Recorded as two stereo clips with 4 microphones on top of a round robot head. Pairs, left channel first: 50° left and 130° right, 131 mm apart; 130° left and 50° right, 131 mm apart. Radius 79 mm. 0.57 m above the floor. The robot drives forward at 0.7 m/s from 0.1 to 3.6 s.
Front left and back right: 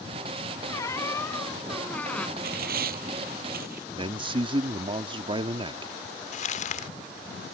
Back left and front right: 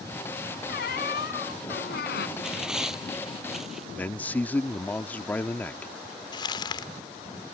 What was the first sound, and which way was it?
A squeak, 120° left.